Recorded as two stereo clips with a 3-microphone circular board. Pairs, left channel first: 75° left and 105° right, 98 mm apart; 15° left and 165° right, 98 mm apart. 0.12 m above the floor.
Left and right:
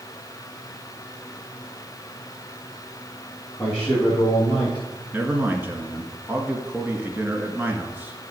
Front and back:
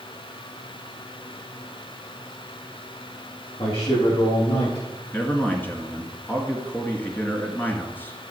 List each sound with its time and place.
3.6 s a man speaking: 5° right, 8 m; by 4.8 s 15° right, 9 m
5.1 s a man speaking: 45° right, 2 m